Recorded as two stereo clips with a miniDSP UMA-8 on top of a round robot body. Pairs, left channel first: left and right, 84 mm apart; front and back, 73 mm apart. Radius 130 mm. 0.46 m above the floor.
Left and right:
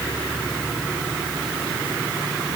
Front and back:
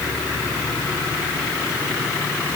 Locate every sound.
Only background noise.